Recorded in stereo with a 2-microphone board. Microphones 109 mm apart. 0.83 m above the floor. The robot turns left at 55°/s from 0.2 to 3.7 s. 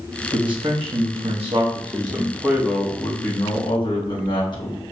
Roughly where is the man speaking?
Ahead right.